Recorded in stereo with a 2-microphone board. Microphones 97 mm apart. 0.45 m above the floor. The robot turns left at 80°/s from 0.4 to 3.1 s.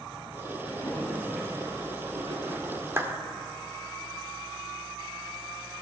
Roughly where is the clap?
Right.